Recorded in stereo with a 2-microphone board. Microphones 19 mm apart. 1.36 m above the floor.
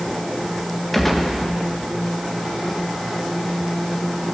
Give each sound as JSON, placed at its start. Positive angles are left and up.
{"t": 0.9, "sound": "a gunshot", "side_deg": 5, "distance_m": 1.4}